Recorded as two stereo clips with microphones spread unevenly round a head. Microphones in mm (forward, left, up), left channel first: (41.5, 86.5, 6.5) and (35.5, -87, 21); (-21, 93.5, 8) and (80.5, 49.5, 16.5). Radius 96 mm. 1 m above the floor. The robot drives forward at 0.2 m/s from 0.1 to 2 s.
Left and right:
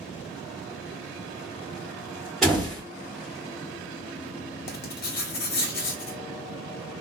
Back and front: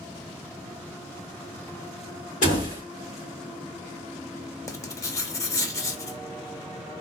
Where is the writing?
100° left, 0.6 m.